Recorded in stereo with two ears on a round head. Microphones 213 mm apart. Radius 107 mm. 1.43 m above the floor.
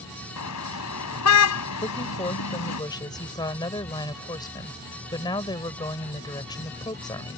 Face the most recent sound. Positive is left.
turn(degrees=20)  # may be behind; listen again after turning